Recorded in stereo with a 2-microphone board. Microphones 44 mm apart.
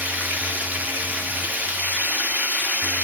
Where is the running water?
40° right (ahead or behind), 0.7 m.